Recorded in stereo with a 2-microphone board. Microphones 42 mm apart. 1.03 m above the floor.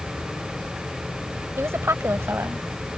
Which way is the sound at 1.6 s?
85° right.